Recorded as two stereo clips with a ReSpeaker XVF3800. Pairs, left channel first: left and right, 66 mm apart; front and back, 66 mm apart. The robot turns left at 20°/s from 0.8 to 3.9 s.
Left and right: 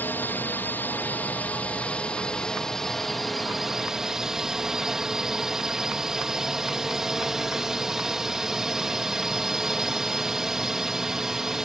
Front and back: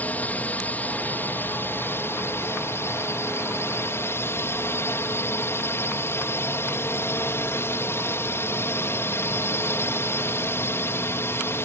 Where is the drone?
50° left; by 11.7 s 15° right.